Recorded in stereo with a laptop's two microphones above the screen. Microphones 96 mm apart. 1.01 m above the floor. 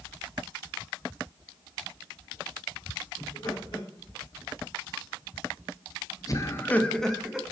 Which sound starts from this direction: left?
Laughter, at 3.2 s.